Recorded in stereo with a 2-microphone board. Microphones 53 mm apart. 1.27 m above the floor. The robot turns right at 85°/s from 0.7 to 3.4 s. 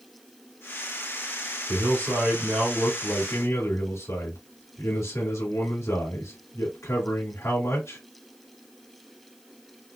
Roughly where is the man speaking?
Right.